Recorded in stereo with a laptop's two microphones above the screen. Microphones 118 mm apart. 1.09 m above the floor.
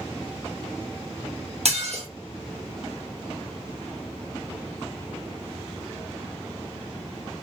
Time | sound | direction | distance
1.6 | dishes clattering | 65° right (ahead or behind) | 0.7 m